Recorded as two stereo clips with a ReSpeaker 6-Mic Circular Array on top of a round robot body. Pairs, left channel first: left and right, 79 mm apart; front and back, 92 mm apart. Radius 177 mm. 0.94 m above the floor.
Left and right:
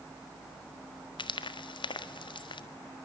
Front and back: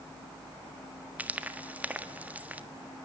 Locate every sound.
1.2 s frying: 105° left, 1.6 m